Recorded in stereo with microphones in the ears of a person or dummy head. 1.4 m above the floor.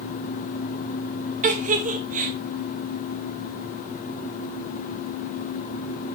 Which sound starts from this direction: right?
A giggle, at 1.4 s.